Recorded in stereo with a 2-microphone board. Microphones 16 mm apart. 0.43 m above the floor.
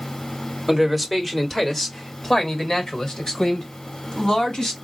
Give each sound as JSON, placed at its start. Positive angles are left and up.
{"t": 0.7, "sound": "a man speaking", "side_deg": 5, "distance_m": 1.3}